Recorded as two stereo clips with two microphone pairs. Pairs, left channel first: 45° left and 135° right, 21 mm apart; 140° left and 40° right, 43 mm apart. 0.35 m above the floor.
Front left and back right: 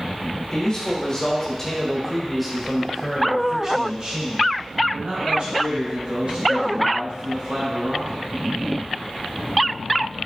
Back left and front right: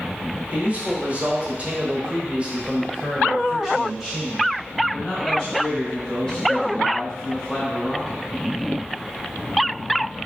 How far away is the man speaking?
About 1.5 m.